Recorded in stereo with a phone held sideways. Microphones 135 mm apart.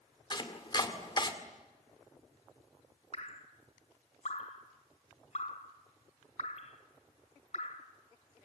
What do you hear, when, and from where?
0.3 s chopping: 35° left (ahead or behind), 1.9 m
3.1 s dripping: 60° left (ahead or behind), 2 m